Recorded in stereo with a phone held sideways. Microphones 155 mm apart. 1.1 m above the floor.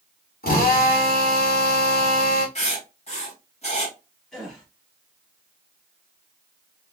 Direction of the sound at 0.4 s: 75° left (ahead or behind).